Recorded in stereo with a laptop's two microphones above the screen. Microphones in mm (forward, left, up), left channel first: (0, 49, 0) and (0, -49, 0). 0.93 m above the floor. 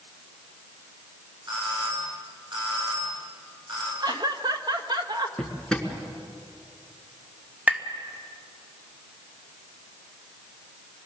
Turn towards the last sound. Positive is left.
turn(degrees=-15)  # may be behind; listen again after turning